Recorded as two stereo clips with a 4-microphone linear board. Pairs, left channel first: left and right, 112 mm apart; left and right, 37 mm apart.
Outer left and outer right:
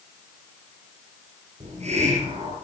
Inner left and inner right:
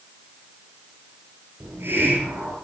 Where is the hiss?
75° right (ahead or behind), 7 m.